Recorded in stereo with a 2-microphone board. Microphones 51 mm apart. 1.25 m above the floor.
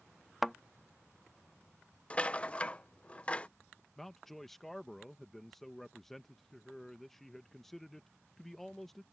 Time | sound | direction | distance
0.4 | a thud | centre (ahead or behind) | ?
2.1 | a rattle | 25° left (ahead or behind) | ?
4.0 | a man speaking | 5° left (ahead or behind) | ?